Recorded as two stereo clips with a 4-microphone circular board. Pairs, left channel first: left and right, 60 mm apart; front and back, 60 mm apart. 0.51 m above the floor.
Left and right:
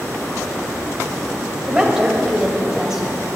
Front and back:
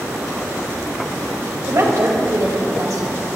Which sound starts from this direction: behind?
A woman speaking, at 1.7 s.